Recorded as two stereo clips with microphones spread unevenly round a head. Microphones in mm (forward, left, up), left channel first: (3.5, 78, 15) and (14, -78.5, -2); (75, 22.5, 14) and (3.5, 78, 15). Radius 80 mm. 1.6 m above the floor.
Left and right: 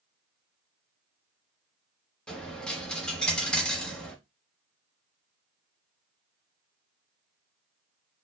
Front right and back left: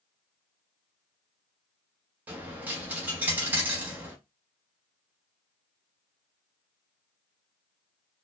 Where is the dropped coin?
145° left, 1.0 m.